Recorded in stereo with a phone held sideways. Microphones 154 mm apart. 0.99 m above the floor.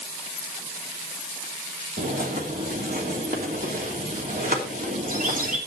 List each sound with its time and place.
2.0 s a bird: 65° right (ahead or behind), 3 m